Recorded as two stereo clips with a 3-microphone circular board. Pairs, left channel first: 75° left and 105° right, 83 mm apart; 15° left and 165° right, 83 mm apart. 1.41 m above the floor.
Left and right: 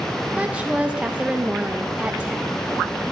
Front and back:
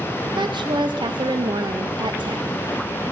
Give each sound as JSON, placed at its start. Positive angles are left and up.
{"t": 0.4, "sound": "a woman speaking", "azimuth_deg": 180, "distance_m": 0.7}